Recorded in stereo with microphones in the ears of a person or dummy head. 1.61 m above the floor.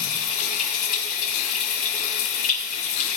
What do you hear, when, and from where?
0.0 s running water: 50° left (ahead or behind), 3 m